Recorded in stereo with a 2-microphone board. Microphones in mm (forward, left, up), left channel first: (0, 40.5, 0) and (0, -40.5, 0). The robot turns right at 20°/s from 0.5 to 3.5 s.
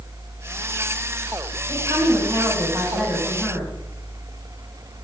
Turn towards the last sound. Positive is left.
turn(degrees=-5)